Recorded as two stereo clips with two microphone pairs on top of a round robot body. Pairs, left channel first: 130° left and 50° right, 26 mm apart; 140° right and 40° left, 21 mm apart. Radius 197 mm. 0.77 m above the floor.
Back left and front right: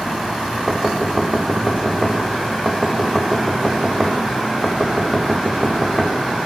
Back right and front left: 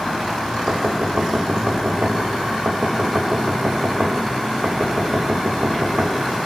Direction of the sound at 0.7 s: 25° left.